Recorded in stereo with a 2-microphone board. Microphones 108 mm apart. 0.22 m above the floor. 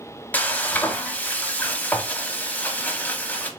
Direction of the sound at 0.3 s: 15° left (ahead or behind).